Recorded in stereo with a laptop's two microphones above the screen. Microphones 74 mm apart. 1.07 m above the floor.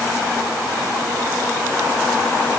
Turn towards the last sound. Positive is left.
No sound to turn to.